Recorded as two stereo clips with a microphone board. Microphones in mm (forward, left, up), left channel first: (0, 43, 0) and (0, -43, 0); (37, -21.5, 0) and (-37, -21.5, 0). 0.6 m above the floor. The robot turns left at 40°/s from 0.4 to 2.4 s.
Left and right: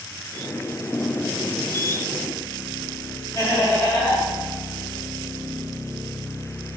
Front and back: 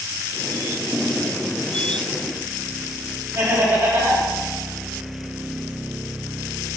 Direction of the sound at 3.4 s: 140° left.